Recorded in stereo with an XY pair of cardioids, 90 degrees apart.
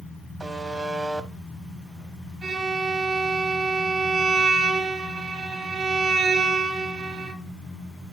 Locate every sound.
0.4 s a buzzer: 25° right, 1.1 m
2.4 s a violin: 50° right, 3.5 m